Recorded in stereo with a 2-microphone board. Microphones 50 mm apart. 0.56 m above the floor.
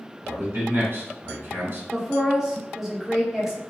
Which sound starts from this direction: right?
A man speaking, at 0.2 s.